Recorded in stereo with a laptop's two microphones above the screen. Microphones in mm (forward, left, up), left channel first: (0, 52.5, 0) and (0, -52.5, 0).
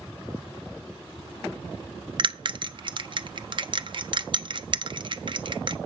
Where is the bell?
50° right (ahead or behind), 0.5 m.